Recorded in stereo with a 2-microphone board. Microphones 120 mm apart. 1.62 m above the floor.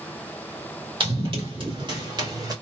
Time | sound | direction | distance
1.0 | running footsteps | 45° right (ahead or behind) | 2.5 m